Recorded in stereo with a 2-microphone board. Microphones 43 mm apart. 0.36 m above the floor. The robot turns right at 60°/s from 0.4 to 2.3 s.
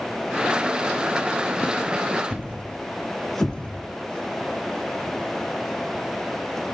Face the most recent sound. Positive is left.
turn(degrees=30)  # may be behind; listen again after turning